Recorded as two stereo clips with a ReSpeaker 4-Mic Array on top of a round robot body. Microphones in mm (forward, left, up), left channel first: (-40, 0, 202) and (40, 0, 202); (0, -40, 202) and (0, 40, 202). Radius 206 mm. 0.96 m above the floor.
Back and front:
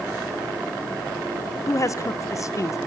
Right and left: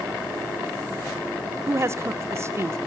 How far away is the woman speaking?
About 1.1 m.